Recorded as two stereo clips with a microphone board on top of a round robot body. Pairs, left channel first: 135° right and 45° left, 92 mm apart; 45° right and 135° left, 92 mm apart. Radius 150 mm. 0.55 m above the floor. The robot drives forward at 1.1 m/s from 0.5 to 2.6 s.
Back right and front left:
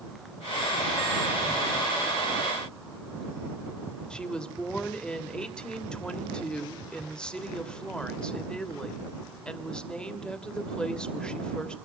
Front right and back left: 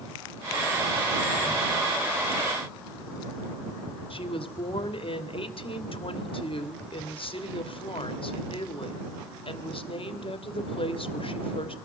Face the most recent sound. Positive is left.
turn(degrees=-55)